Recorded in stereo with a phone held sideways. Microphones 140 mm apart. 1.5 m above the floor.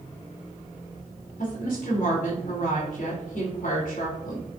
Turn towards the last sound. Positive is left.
turn(degrees=80)